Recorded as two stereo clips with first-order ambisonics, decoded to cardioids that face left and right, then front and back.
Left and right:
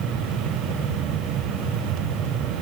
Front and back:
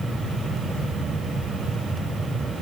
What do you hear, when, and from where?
Only background noise.